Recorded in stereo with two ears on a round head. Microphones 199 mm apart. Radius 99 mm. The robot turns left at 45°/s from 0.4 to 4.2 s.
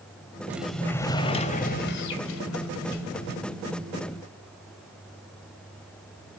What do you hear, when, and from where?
0.5 s a sliding door: 170° right, 2 m; by 3.4 s 60° left, 2 m